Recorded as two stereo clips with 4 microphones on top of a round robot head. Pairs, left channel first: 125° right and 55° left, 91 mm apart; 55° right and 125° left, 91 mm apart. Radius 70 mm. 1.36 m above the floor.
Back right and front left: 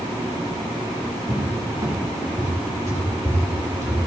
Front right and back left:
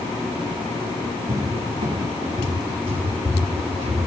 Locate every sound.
1.3 s a cupboard door: 110° left, 3 m